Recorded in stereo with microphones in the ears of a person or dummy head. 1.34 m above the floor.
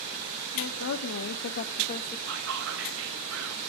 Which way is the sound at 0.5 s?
80° left.